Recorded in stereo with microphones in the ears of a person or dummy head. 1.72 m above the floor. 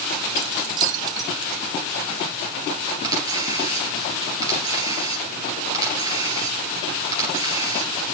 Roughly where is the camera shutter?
Centre.